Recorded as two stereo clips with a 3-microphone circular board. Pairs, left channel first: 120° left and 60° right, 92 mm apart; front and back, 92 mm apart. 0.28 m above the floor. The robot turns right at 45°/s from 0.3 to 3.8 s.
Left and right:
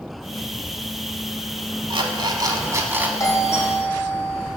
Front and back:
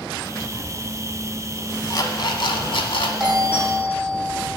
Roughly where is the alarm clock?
Ahead right.